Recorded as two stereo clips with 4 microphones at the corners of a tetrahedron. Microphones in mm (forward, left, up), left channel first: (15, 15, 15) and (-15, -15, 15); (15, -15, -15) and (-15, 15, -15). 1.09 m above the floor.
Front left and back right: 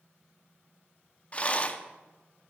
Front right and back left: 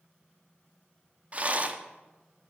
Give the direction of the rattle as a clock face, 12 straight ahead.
9 o'clock.